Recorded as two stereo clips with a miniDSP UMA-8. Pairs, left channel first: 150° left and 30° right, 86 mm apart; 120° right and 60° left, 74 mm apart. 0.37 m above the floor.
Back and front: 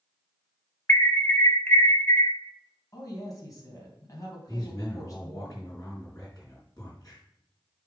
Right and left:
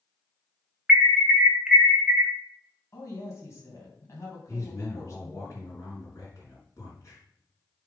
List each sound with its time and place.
0.9 s an alarm: 120° left, 1.3 m
2.9 s a woman speaking: 165° right, 3 m
4.5 s a man speaking: 165° right, 4 m